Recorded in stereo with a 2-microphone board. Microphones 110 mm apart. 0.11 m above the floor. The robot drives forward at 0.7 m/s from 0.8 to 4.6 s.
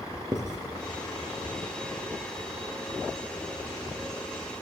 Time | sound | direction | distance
0.3 | writing | 40° right (ahead or behind) | 4 m